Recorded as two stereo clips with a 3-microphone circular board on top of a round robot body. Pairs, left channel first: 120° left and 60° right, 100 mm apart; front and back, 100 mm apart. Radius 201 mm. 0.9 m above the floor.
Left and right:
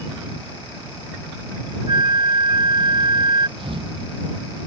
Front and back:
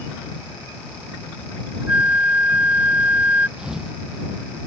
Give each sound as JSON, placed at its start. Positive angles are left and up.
{"t": 1.9, "sound": "a flute", "azimuth_deg": -105}
{"t": 3.6, "sound": "a thud", "azimuth_deg": -95}